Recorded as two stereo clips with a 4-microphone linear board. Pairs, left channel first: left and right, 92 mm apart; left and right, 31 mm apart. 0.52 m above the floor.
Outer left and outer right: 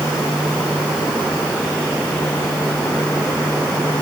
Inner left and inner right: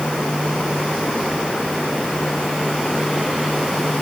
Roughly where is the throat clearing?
I don't hear throat clearing.